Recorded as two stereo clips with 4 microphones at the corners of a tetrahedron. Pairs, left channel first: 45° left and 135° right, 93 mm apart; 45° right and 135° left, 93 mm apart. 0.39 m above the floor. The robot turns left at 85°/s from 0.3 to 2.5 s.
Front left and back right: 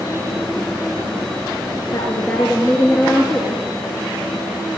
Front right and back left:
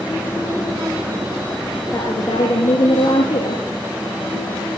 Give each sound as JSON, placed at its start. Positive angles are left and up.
{"t": 1.9, "sound": "a woman speaking", "azimuth_deg": 0, "distance_m": 7.5}